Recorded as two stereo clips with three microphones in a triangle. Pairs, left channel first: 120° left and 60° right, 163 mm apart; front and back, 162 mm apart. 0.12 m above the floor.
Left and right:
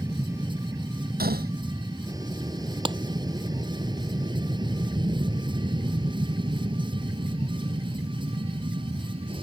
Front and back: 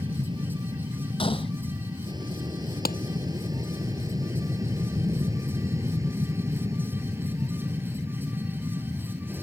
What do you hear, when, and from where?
0.0 s an aircraft: 130° right; by 9.4 s 105° right
1.2 s a gunshot: 55° right
2.9 s a clap: 5° right